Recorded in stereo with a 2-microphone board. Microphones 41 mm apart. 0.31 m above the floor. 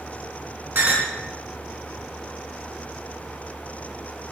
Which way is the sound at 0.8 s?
60° right (ahead or behind).